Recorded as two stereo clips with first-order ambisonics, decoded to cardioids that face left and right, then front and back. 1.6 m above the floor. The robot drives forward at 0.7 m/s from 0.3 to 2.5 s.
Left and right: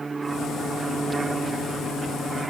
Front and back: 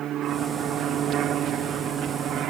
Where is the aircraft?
155° right; by 2.5 s 160° right.